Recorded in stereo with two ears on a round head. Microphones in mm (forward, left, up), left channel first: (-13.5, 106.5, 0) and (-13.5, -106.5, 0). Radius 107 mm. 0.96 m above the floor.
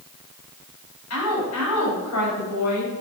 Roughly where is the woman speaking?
Left.